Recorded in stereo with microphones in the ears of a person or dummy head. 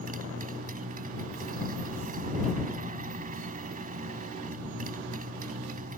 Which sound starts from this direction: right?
A motorcycle, at 0.0 s.